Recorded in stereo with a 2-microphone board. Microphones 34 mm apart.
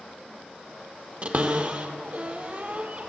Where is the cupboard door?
40° right (ahead or behind), 1.2 m.